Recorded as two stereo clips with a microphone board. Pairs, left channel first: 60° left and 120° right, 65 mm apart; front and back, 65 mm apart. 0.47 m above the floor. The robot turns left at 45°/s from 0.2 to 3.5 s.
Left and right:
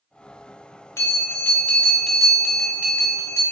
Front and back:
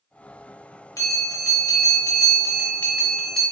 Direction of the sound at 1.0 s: 25° left.